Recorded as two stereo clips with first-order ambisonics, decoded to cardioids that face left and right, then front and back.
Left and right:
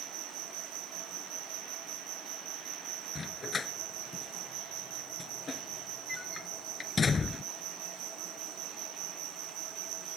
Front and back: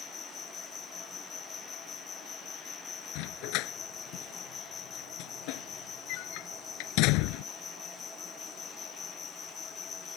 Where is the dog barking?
20° left.